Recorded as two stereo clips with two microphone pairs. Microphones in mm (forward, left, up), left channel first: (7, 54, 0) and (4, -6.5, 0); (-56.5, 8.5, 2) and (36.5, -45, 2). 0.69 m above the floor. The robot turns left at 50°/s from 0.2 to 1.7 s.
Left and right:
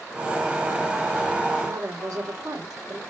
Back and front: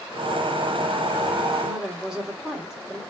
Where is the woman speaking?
110° right, 2.5 m; by 3.0 s 115° right, 2.5 m.